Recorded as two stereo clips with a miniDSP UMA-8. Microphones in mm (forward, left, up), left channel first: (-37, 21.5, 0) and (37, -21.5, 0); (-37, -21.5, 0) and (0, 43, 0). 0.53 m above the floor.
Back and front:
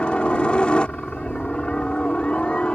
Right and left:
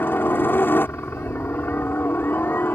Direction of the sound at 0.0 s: 145° right.